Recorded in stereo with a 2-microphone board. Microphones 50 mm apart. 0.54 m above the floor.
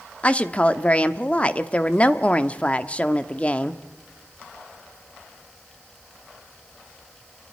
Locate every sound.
0.2 s a woman speaking: 25° left (ahead or behind), 0.7 m